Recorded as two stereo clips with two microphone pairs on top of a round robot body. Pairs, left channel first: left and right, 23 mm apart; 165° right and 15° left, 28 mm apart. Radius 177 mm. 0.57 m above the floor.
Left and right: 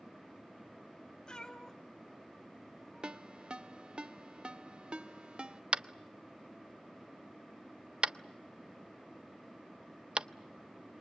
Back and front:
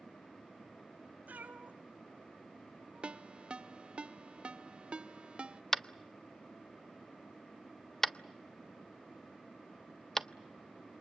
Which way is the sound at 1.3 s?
35° left.